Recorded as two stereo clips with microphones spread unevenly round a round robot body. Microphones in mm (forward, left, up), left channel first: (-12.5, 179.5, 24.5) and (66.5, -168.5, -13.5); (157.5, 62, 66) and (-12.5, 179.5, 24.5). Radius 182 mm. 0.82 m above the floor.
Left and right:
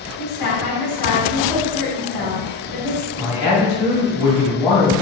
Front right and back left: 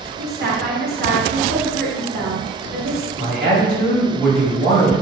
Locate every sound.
0.2 s a woman speaking: 125° left, 1.5 m
3.2 s a man speaking: 135° left, 1.4 m